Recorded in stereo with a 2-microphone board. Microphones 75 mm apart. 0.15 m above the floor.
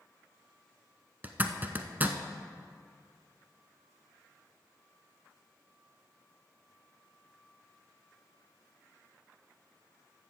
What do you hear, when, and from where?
1.2 s a zipper: 25° right (ahead or behind), 0.8 m